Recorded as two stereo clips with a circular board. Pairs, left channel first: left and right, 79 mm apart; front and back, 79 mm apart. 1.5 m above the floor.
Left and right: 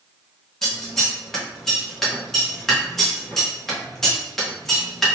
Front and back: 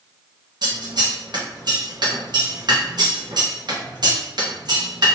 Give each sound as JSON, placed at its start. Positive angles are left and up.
{"t": 0.6, "sound": "scissors", "azimuth_deg": 175, "distance_m": 1.0}